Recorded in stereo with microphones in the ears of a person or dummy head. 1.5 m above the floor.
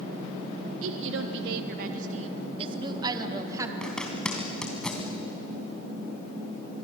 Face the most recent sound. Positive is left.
turn(degrees=10)  # may be behind; listen again after turning